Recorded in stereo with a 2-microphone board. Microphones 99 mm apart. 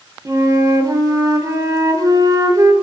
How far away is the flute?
About 0.5 m.